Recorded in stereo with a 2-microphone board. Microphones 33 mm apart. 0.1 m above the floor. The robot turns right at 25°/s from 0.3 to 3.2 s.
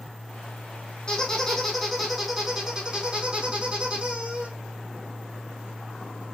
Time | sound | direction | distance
1.1 | a squeak | 155° left | 3 m